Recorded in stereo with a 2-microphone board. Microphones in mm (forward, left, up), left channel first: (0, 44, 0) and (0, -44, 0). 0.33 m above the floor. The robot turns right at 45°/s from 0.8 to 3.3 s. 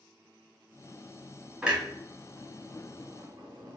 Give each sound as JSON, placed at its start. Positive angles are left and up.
{"t": 1.6, "sound": "a clunk", "side_deg": -5, "distance_m": 1.1}